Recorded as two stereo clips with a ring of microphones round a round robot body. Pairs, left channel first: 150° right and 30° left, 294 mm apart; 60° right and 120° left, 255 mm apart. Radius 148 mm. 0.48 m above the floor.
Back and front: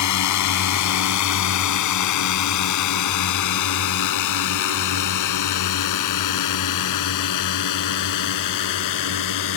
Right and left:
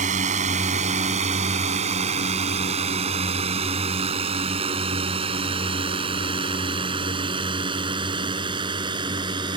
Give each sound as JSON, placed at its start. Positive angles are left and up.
{"t": 0.0, "sound": "a drone", "azimuth_deg": -175}